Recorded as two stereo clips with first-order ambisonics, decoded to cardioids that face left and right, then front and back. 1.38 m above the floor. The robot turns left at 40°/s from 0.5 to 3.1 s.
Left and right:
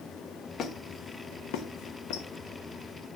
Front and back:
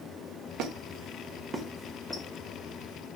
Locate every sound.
0.6 s a squeak: 145° left, 1.1 m; by 2.3 s 80° left, 1.1 m